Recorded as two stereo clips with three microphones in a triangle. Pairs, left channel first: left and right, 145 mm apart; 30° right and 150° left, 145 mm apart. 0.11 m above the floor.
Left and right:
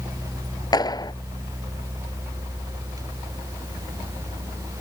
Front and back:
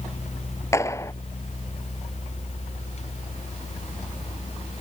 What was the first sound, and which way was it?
A clap, 35° left.